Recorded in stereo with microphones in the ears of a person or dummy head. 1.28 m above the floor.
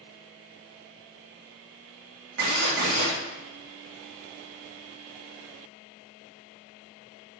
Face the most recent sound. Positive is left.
turn(degrees=-55)  # may be behind; listen again after turning